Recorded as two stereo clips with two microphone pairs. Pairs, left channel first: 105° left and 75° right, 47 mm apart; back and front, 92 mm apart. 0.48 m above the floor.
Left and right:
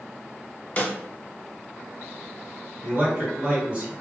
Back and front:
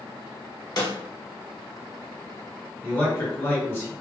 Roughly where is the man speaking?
Behind right.